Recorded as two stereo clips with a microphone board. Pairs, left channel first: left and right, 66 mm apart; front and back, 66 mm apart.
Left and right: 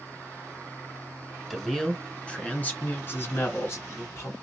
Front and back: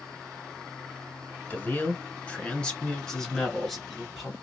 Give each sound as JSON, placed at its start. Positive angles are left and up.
{"t": 1.5, "sound": "a man speaking", "azimuth_deg": 0, "distance_m": 1.5}